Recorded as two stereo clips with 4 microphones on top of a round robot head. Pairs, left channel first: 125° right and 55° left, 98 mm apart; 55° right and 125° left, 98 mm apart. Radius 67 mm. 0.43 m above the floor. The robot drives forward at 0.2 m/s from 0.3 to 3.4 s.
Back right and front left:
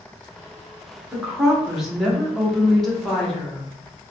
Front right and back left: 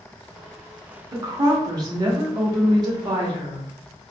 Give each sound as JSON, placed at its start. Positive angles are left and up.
{"t": 1.1, "sound": "a woman speaking", "azimuth_deg": 135, "distance_m": 1.2}